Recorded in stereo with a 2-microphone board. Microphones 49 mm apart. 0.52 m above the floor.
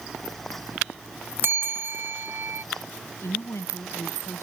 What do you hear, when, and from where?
1.4 s a bell: 55° right (ahead or behind)
3.2 s a woman speaking: 70° left (ahead or behind)